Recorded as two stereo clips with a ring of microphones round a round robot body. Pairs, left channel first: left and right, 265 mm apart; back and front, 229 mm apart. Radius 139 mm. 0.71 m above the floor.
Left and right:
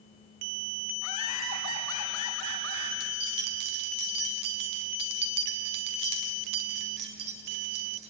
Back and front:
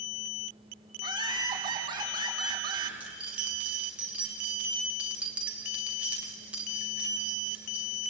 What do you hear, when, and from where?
1.0 s laughter: 70° left, 7 m
3.0 s keys jangling: 85° right, 2.5 m